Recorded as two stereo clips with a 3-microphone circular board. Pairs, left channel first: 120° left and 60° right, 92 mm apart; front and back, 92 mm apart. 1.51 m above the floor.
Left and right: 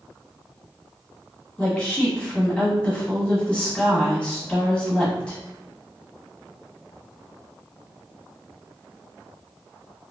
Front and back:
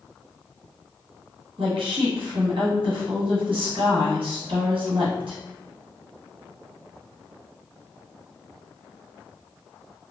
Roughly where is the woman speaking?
Behind.